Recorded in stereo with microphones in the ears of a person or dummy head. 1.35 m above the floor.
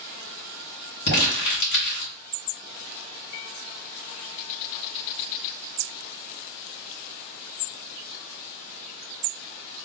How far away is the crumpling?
About 2 m.